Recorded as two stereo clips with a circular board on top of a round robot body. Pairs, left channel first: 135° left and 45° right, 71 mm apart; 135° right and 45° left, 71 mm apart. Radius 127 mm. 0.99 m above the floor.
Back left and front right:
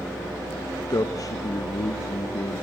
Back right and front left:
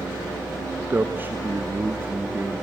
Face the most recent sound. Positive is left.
turn(degrees=105)